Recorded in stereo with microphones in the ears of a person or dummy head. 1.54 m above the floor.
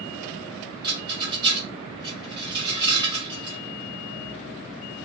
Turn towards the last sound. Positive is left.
turn(degrees=-25)  # may be behind; listen again after turning